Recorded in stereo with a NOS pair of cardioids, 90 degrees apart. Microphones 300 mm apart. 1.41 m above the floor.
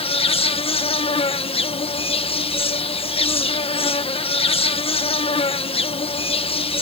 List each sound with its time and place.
0.0 s an insect: 20° left